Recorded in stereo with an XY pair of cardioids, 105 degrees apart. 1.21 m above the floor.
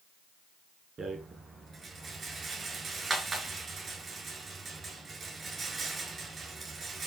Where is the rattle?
35° right, 5.5 m.